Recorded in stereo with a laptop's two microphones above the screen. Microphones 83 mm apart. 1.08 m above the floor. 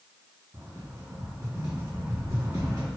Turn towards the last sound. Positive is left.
turn(degrees=-40)  # may be behind; listen again after turning